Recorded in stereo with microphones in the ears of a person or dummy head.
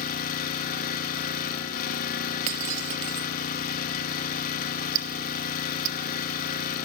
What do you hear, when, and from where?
0.0 s an engine running: 50° left (ahead or behind), 1.7 m
2.5 s breaking glass: 45° right (ahead or behind), 1.5 m
5.0 s ticking: 70° right (ahead or behind), 1.1 m